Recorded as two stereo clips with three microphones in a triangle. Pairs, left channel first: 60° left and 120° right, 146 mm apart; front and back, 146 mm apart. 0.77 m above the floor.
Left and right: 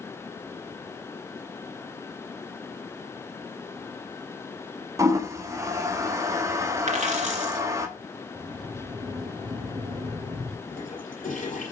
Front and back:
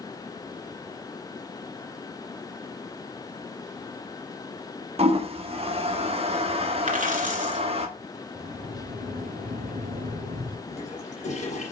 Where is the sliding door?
Straight behind, 1.4 m.